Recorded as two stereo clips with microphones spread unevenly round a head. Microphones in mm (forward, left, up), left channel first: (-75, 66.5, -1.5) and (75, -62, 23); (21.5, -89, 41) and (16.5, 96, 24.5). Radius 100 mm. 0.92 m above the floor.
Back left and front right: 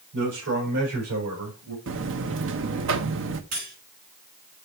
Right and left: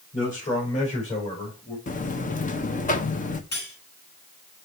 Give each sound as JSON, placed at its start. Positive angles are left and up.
{"t": 0.1, "sound": "a man speaking", "azimuth_deg": -40, "distance_m": 5.0}
{"t": 1.9, "sound": "a buzzer", "azimuth_deg": -45, "distance_m": 0.9}
{"t": 3.5, "sound": "cutlery clinking", "azimuth_deg": -60, "distance_m": 6.0}